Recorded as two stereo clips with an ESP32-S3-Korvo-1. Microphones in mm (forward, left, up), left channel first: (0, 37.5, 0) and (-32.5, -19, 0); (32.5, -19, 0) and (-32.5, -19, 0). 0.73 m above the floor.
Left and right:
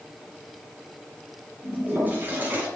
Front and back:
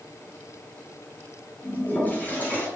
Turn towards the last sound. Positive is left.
turn(degrees=-60)